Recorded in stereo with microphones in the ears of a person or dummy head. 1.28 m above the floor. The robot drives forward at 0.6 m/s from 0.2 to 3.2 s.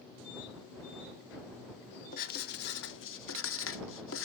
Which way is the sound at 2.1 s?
50° left (ahead or behind).